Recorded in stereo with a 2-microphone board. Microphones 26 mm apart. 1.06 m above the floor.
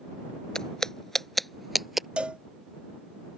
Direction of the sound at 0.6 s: 30° left (ahead or behind).